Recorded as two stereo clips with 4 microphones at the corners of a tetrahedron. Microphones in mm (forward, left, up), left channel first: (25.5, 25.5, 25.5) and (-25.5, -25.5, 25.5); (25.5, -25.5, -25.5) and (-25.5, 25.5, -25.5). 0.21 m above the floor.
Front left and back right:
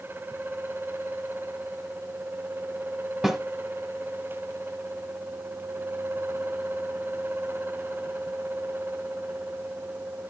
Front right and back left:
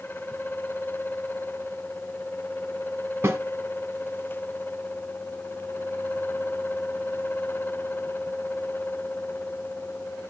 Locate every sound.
3.2 s a snare drum: 145° left, 1.2 m